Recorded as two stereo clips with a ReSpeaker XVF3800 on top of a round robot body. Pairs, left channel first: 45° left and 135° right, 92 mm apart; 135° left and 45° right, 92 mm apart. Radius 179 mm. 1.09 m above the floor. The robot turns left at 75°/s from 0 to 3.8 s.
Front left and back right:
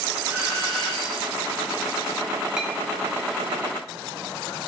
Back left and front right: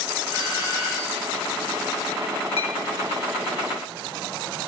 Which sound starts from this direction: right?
A doorbell, at 0.3 s.